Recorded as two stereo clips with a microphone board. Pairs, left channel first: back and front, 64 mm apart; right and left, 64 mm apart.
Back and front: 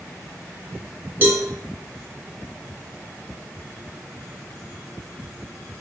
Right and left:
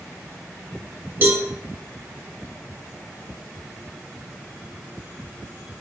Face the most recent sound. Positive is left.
turn(degrees=50)